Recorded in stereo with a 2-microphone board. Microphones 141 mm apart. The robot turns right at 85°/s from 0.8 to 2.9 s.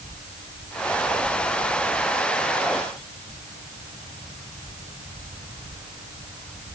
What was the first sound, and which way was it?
Only background noise.